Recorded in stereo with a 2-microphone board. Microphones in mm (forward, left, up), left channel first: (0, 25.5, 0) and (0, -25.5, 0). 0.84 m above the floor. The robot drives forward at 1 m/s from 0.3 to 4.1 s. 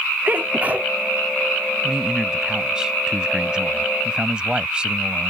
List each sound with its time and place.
0.2 s a sneeze: 40° right (ahead or behind); by 0.9 s 30° right (ahead or behind)
1.8 s a man speaking: 15° right (ahead or behind); by 5.3 s 20° right (ahead or behind)